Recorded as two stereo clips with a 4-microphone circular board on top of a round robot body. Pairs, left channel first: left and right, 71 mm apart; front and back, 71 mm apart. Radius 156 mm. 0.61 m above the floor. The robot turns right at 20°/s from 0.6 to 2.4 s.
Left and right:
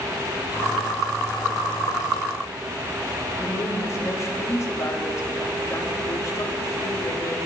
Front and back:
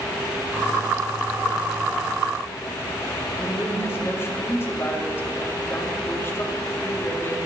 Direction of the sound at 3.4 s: 50° left.